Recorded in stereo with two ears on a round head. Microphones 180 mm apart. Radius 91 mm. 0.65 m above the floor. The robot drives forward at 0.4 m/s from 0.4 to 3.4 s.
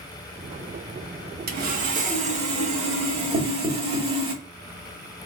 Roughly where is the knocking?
Right.